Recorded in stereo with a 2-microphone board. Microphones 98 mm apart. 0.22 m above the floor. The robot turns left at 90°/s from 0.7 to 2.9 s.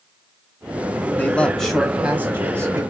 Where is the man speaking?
20° left (ahead or behind), 1.3 m; by 2.8 s 25° right (ahead or behind), 1.3 m.